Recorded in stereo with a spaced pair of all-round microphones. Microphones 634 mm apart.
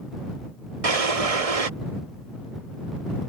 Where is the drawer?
65° right (ahead or behind).